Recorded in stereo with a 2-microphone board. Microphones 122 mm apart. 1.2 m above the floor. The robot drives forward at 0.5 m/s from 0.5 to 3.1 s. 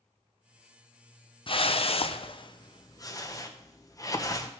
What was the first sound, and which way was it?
A whoosh, 45° left (ahead or behind).